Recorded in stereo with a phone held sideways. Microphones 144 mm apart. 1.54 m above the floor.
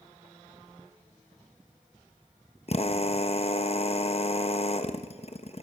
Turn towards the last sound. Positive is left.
turn(degrees=45)  # may be behind; listen again after turning